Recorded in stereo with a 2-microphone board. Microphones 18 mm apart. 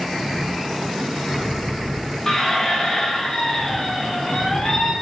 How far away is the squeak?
About 0.9 m.